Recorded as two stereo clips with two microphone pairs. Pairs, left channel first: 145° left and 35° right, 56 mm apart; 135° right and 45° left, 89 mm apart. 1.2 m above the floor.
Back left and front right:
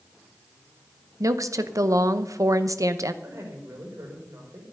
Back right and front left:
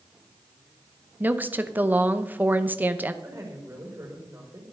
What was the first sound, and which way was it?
A woman speaking, 25° right.